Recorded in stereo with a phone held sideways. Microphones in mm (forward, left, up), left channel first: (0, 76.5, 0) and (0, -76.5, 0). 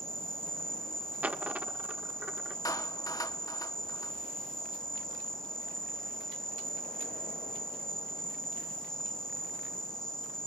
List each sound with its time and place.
0.0 s an insect: 5° left (ahead or behind), 4.5 m
1.2 s a dropped coin: 10° right (ahead or behind), 0.8 m
2.6 s a clap: 25° left (ahead or behind), 1.4 m